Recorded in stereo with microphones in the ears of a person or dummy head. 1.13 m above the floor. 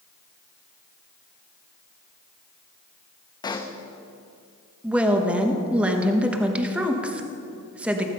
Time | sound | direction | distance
3.4 | a pop | 15° left (ahead or behind) | 0.7 m
4.8 | a woman speaking | centre (ahead or behind) | 1.1 m